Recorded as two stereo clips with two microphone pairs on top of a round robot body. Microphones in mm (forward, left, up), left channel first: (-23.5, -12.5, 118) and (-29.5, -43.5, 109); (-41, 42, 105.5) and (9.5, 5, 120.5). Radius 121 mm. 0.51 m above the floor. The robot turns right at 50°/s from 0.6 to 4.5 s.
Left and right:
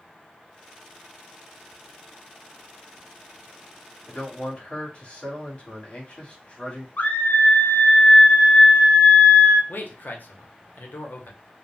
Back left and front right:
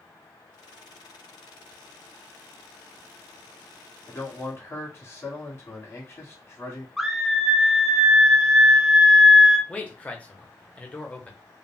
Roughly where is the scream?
Ahead left.